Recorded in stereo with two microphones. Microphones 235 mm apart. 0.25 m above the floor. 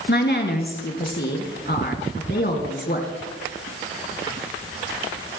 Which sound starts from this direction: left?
A woman speaking, at 0.1 s.